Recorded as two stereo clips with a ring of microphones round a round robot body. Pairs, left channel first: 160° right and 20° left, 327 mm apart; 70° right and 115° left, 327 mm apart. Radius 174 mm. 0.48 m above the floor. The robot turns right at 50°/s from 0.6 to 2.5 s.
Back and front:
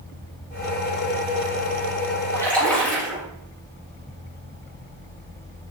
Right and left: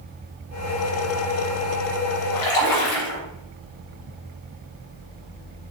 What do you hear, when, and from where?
2.3 s a splash: 80° right, 3 m; by 3.2 s 70° right, 3 m